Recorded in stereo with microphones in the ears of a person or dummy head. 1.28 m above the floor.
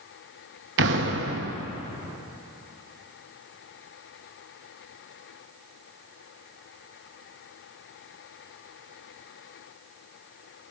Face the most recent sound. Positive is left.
turn(degrees=-65)  # may be behind; listen again after turning